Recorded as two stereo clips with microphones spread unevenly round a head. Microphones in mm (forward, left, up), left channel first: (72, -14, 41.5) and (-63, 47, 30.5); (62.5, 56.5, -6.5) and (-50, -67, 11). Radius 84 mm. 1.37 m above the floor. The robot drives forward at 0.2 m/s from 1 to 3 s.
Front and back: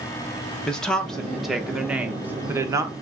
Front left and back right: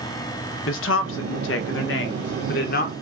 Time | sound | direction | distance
0.7 | a woman speaking | 60° left | 0.9 m